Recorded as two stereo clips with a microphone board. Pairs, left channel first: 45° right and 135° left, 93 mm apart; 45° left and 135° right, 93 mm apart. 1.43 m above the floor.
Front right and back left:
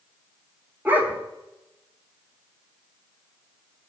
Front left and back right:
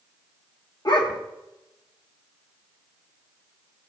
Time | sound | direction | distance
0.8 | a dog barking | 70° left | 1.5 m